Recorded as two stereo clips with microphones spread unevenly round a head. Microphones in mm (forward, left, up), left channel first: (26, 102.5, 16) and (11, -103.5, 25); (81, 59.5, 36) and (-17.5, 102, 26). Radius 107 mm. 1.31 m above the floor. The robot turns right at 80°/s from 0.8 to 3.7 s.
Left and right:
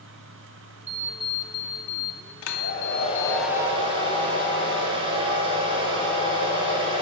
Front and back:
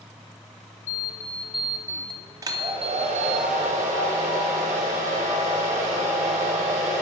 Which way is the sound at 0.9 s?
35° right.